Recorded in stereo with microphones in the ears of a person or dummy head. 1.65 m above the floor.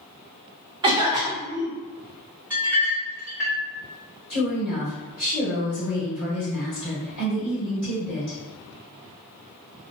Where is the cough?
20° right (ahead or behind), 0.6 m.